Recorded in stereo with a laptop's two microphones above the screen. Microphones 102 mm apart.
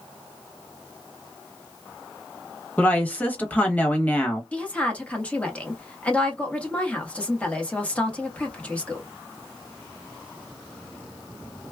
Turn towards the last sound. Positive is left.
turn(degrees=15)  # may be behind; listen again after turning